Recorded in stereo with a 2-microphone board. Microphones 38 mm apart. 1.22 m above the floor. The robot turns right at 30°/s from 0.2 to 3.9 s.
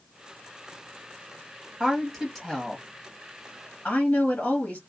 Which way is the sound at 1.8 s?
25° right.